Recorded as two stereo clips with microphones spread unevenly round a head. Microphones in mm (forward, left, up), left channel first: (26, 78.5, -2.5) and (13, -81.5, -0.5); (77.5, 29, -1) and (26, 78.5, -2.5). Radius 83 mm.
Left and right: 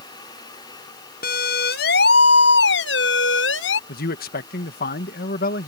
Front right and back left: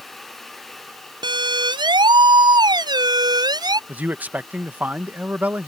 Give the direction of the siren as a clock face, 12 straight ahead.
8 o'clock.